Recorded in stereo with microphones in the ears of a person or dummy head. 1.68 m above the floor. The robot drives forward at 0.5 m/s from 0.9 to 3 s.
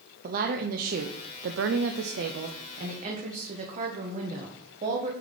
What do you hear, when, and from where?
0.2 s a woman speaking: 55° right (ahead or behind), 0.7 m; by 5.1 s 40° right (ahead or behind), 0.9 m